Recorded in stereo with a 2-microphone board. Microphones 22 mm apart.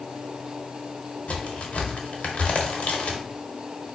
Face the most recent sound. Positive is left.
turn(degrees=70)  # may be behind; listen again after turning